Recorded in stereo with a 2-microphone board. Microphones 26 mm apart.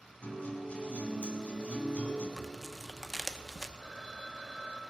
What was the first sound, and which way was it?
A guitar, 50° left (ahead or behind).